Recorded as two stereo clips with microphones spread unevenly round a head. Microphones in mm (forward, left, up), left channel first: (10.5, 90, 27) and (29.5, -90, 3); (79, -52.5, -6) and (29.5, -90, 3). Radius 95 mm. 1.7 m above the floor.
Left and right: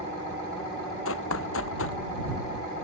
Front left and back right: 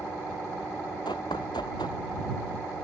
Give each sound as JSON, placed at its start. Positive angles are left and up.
{"t": 1.1, "sound": "running footsteps", "azimuth_deg": 90}